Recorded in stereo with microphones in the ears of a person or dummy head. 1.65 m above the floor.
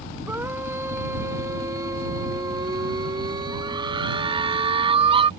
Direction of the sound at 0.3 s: 10° right (ahead or behind).